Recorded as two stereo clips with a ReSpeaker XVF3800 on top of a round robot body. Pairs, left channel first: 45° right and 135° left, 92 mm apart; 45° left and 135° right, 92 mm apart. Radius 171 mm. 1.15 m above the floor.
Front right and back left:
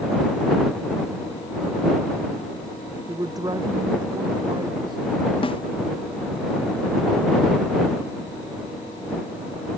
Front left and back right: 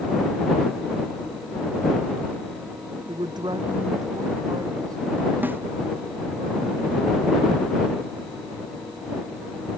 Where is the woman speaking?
175° right; by 5.3 s 170° left.